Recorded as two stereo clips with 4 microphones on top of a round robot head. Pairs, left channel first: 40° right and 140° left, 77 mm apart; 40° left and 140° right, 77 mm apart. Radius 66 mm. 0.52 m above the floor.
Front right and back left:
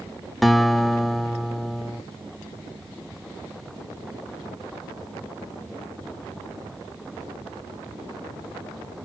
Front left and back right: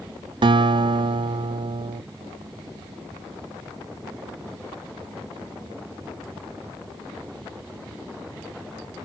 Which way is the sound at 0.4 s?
130° right.